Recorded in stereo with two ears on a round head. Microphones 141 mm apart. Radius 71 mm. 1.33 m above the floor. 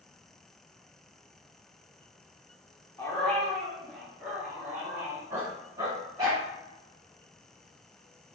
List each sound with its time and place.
3.0 s a dog barking: 15° left (ahead or behind), 1.1 m; by 6.4 s 25° right (ahead or behind), 2.5 m